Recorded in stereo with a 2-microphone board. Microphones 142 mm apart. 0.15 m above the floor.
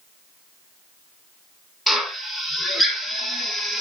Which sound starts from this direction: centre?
A drill, at 1.9 s.